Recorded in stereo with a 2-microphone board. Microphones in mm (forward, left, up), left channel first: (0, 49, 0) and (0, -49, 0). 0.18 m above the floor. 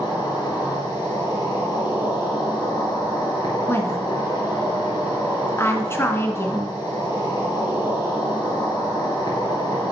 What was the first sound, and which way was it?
An insect, 45° left (ahead or behind).